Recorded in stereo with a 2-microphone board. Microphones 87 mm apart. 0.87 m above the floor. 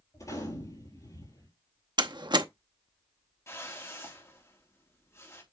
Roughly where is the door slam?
Right.